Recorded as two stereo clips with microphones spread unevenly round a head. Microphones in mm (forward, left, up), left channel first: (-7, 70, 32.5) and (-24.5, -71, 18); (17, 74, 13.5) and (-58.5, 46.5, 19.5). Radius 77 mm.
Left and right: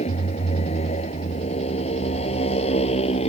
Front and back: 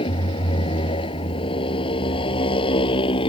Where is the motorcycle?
30° left.